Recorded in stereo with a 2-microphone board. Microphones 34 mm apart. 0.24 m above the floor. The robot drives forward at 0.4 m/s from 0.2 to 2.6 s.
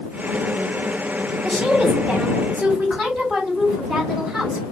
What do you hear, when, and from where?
1.4 s a woman speaking: 25° right (ahead or behind), 1.9 m